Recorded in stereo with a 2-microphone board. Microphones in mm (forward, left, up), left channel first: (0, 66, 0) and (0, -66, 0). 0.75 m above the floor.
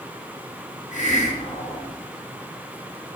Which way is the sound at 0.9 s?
65° left (ahead or behind).